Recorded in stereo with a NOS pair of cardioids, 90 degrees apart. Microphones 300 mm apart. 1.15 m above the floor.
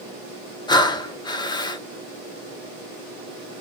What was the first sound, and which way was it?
Breathing, 15° left.